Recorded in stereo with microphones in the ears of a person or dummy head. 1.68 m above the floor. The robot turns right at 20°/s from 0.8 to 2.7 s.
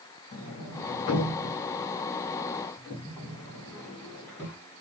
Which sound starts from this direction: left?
A sliding door, at 0.3 s.